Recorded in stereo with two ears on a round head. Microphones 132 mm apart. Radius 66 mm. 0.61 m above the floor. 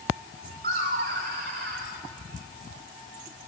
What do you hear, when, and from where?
0.6 s laughter: 60° right (ahead or behind), 2 m; by 1.9 s 70° right (ahead or behind), 3 m